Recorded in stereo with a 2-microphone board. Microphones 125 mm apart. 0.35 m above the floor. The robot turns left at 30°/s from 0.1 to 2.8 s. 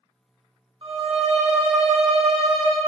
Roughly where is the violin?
Ahead right.